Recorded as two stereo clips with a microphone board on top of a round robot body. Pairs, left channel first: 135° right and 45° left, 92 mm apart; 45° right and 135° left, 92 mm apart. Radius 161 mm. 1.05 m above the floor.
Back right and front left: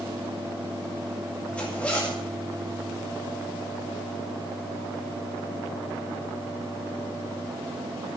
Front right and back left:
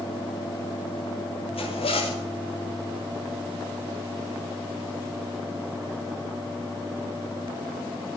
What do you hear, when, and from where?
1.5 s a zipper: 60° right, 7.5 m